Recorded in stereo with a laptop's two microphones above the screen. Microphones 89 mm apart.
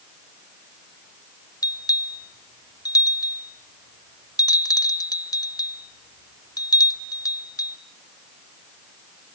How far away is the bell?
About 0.8 m.